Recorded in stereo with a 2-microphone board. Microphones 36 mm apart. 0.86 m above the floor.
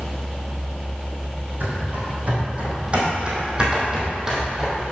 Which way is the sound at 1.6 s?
45° right (ahead or behind).